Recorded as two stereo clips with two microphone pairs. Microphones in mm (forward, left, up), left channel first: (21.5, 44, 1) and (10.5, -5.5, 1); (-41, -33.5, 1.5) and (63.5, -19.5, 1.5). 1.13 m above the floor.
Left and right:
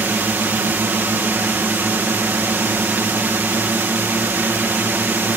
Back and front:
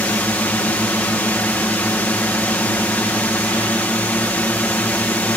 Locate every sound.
0.0 s a drone: 105° right